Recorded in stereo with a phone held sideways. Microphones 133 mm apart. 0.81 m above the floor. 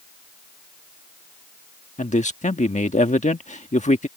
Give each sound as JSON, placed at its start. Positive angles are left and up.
{"t": 2.0, "sound": "a man speaking", "side_deg": 65}